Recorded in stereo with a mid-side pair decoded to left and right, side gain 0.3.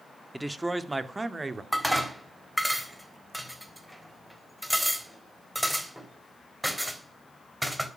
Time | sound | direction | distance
0.3 | a man speaking | 5° right | 2 m
1.7 | dishes clattering | straight ahead | 3.5 m